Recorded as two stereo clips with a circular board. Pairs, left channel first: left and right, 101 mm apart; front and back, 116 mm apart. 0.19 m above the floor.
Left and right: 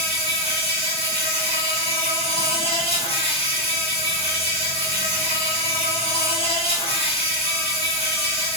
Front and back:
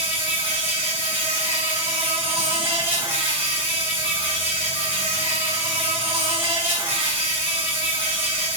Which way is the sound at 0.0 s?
110° left.